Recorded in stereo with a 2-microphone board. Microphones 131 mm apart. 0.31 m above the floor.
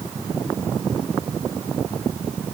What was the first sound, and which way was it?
Only background noise.